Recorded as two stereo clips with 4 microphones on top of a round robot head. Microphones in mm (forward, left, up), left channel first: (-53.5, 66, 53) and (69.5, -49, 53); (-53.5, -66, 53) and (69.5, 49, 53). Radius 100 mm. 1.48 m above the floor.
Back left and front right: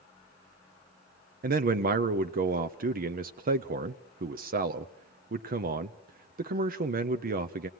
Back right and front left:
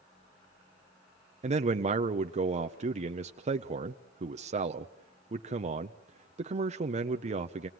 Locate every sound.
1.4 s a man speaking: 5° right, 0.6 m